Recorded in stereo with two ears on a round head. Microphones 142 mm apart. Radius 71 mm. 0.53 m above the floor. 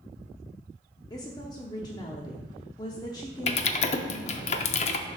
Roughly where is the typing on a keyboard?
Left.